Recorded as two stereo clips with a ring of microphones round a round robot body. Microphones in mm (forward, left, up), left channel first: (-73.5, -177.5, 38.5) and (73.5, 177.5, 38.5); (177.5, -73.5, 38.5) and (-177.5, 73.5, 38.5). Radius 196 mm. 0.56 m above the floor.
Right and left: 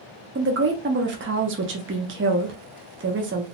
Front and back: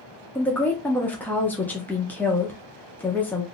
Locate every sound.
0.3 s a woman speaking: 60° left, 0.6 m